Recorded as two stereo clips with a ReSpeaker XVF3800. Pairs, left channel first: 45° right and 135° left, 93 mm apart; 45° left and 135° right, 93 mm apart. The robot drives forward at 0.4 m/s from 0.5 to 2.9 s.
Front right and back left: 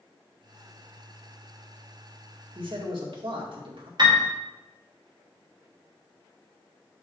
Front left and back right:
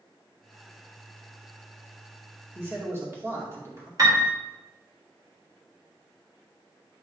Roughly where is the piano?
Behind.